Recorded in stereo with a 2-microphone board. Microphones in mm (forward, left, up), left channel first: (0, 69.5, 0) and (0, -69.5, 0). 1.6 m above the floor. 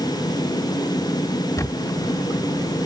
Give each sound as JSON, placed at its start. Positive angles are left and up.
{"t": 1.6, "sound": "a camera shutter", "side_deg": 25}